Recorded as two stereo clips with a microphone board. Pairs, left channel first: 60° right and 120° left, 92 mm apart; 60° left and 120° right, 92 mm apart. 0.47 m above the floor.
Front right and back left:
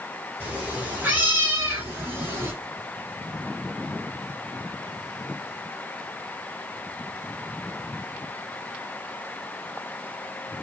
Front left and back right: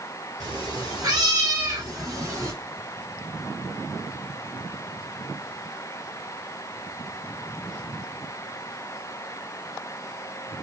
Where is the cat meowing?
170° right, 3 m; by 2.5 s straight behind, 1.5 m.